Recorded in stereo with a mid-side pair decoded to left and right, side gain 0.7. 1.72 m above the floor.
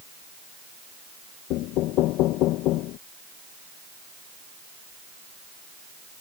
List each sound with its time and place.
1.5 s knocking: 60° left